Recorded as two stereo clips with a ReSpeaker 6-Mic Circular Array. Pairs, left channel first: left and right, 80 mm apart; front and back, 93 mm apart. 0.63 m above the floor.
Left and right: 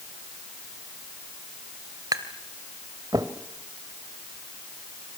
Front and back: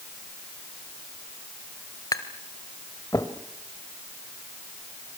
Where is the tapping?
50° right, 1.9 m.